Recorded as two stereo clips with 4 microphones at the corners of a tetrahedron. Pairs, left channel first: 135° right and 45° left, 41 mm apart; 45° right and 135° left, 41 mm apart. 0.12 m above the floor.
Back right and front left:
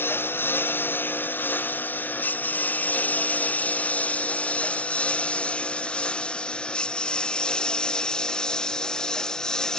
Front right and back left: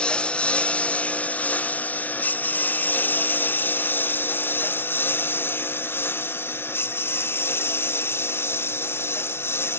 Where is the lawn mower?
115° right; by 9.8 s 60° right.